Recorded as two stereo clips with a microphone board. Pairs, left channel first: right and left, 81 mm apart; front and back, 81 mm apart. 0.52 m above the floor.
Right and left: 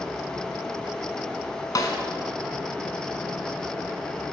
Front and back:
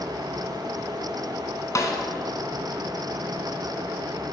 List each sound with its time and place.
1.8 s a snare drum: 50° right, 1.5 m